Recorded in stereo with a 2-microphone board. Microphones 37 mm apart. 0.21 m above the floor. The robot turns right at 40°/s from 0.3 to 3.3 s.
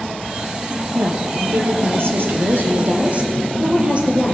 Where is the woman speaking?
130° right, 5.5 m; by 4.3 s 35° right, 5.5 m.